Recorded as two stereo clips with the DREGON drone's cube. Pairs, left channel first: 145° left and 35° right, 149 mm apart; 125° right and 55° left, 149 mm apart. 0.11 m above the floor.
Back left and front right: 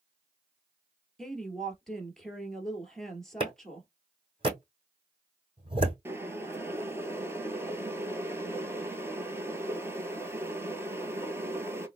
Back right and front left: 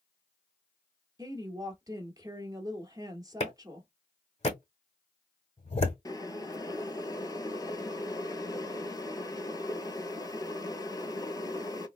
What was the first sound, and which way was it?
A woman speaking, 65° left.